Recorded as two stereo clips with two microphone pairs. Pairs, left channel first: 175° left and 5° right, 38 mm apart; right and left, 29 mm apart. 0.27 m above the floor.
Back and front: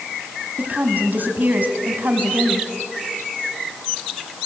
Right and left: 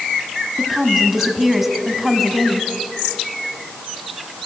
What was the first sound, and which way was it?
A woman speaking, 10° left.